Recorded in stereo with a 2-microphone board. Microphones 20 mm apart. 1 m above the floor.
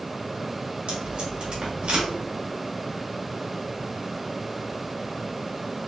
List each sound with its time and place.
0.9 s tape being pulled: 60° right (ahead or behind), 1.6 m